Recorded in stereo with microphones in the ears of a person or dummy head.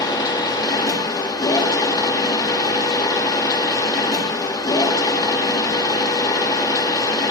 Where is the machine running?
20° left (ahead or behind), 1.6 m.